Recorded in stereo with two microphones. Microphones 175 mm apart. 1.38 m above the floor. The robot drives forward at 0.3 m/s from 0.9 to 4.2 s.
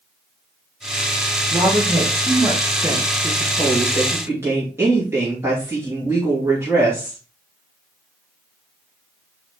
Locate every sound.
1.5 s a woman speaking: 20° right (ahead or behind), 1.5 m; by 7.2 s 15° right (ahead or behind), 2 m